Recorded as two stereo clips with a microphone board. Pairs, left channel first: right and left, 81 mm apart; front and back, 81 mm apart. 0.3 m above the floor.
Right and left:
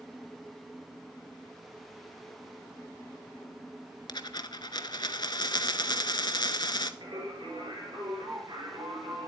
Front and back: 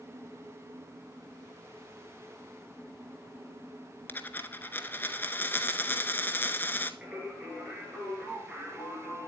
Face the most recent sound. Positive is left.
turn(degrees=110)